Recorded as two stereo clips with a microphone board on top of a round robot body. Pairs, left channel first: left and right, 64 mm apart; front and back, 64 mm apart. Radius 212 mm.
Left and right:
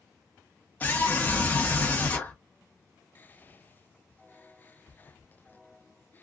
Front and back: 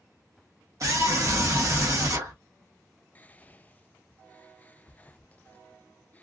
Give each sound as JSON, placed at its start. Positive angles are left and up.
{"t": 0.8, "sound": "a scream", "azimuth_deg": 155, "distance_m": 1.0}
{"t": 3.1, "sound": "whispering", "azimuth_deg": 50, "distance_m": 0.5}